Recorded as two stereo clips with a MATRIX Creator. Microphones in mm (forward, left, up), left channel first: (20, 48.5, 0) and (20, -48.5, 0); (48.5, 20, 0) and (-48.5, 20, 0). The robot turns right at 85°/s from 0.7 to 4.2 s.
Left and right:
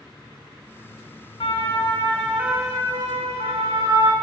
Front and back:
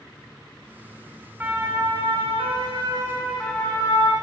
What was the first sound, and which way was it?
A siren, 110° left.